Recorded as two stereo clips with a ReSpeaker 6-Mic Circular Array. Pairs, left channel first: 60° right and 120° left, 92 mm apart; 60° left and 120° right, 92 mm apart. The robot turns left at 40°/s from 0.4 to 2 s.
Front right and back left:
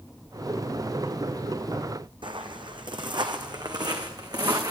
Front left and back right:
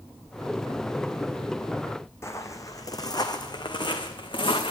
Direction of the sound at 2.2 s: 115° left.